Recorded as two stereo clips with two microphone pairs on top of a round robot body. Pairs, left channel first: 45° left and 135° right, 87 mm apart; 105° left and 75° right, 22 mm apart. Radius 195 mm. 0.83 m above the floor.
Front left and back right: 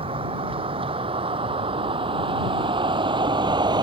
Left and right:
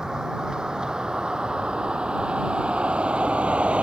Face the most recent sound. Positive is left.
turn(degrees=-100)